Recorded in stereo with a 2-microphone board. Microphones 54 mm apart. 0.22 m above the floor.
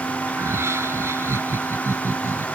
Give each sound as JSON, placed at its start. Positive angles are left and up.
{"t": 0.3, "sound": "laughter", "side_deg": -60}